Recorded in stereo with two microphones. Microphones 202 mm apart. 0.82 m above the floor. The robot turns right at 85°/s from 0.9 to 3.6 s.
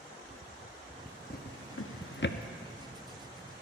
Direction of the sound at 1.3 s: 40° left (ahead or behind).